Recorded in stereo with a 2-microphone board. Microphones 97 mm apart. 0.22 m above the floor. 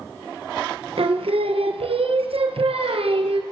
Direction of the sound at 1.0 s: 80° right.